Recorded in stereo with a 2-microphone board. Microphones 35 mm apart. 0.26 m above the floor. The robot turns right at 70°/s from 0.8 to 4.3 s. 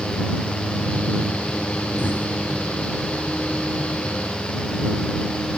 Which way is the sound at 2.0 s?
75° left (ahead or behind).